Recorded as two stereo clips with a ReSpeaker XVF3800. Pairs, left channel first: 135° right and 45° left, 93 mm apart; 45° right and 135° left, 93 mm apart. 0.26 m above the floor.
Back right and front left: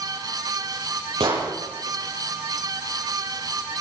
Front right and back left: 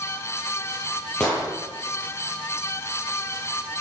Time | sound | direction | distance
1.2 | an explosion | 35° left | 8 m